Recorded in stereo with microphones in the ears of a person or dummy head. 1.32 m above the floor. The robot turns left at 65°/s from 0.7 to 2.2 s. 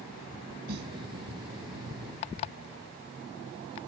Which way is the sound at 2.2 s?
35° left (ahead or behind).